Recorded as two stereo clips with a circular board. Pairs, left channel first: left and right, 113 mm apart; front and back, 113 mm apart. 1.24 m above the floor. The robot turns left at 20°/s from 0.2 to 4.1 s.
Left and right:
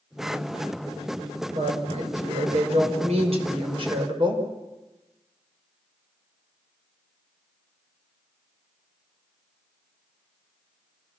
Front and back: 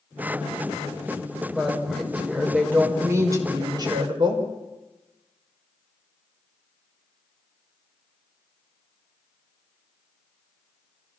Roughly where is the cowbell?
No cowbell in this recording.